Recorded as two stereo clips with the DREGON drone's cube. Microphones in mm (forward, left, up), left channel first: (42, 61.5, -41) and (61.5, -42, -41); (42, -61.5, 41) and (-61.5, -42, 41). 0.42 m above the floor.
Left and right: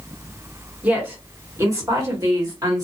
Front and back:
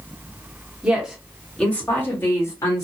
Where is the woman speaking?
125° right, 1.2 m; by 2.9 s 50° right, 1.6 m.